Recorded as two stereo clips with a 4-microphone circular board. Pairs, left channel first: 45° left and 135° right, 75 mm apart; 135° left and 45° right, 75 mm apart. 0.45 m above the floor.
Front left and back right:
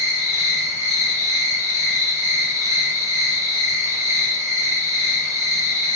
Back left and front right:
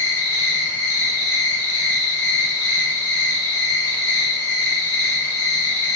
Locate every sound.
0.0 s an insect: 95° right, 2.0 m